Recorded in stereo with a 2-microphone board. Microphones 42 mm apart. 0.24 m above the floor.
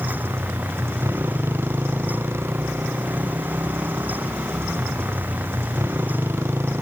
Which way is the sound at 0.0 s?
75° right (ahead or behind).